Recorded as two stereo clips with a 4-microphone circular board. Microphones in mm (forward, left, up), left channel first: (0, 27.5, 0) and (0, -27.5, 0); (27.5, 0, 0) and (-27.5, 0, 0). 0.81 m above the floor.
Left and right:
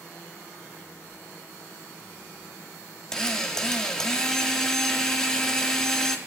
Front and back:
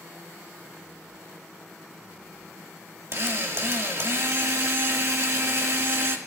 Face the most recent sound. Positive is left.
turn(degrees=165)